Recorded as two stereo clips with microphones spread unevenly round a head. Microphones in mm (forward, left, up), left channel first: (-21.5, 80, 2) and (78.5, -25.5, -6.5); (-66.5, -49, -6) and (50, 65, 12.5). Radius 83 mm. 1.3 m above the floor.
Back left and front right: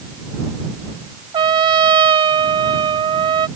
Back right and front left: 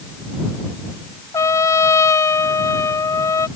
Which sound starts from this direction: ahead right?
A trumpet, at 1.3 s.